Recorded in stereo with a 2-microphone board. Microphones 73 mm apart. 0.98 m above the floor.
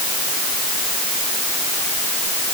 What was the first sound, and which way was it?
Only background noise.